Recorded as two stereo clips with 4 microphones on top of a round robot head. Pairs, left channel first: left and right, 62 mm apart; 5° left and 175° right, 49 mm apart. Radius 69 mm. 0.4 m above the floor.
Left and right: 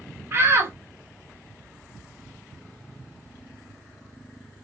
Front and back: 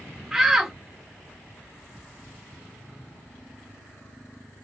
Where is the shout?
95° right, 1.0 m.